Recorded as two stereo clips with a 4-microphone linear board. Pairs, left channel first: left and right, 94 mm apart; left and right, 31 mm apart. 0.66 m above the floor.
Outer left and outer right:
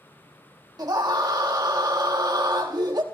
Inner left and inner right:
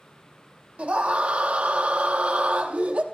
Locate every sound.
0.8 s a scream: 45° right (ahead or behind), 0.9 m